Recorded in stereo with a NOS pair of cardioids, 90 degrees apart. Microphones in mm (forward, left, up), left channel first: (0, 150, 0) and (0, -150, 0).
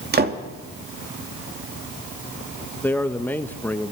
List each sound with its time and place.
0.1 s a door slam: 30° right, 2.5 m
2.8 s a man speaking: 5° left, 1.6 m